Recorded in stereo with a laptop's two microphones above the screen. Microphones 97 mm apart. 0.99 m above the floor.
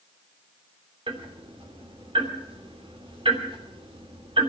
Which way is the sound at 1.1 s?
65° right (ahead or behind).